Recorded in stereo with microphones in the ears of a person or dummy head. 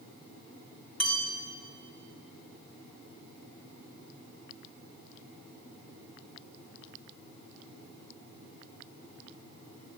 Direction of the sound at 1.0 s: 5° left (ahead or behind).